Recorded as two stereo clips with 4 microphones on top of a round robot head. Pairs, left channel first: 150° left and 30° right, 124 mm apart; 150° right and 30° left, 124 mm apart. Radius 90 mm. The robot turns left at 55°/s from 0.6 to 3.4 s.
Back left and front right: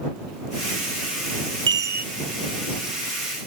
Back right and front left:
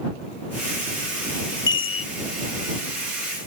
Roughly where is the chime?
Right.